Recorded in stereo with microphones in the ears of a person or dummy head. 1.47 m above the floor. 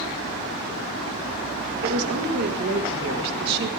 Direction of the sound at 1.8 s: 60° right (ahead or behind).